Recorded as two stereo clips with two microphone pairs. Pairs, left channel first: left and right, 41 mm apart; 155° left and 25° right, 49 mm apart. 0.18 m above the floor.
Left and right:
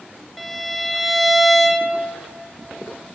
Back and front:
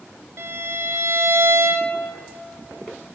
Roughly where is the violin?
Ahead.